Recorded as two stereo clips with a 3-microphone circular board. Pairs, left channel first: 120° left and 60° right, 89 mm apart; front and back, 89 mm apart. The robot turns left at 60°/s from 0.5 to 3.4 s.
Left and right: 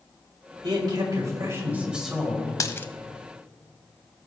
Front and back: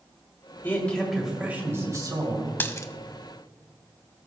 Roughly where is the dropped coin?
Ahead left.